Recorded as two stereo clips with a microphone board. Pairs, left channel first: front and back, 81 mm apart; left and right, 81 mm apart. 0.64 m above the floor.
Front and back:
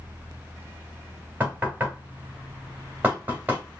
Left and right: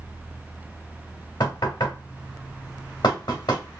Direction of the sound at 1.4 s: 115° left.